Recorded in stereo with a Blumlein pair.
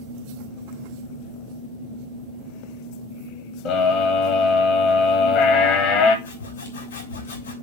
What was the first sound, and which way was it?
A scream, 40° left.